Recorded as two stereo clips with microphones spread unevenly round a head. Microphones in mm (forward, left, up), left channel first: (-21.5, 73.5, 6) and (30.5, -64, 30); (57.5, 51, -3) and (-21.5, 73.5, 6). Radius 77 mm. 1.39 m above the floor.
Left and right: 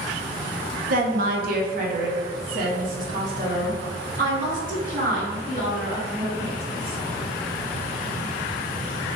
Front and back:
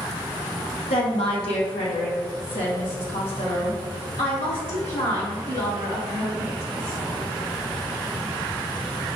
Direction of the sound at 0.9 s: 40° right.